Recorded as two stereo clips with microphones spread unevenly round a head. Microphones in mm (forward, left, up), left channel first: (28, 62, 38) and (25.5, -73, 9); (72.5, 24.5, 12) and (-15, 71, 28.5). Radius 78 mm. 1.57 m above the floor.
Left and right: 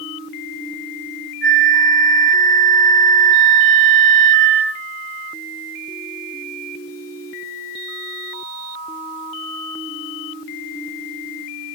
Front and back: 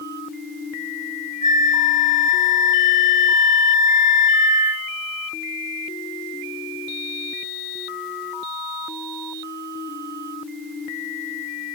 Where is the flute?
20° left, 0.7 m.